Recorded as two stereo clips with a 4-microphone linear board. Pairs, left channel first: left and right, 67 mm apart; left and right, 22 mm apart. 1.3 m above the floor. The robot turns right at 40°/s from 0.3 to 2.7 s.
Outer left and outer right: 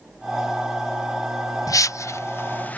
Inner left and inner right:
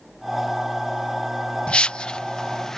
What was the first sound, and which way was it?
A whoosh, 60° left (ahead or behind).